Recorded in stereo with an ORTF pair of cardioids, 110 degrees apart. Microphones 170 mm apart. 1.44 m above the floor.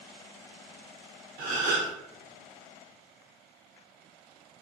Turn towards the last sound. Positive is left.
turn(degrees=-55)